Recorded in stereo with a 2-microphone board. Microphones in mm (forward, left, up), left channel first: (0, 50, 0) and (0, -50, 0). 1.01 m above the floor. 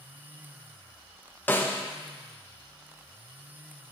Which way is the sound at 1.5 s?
20° left (ahead or behind).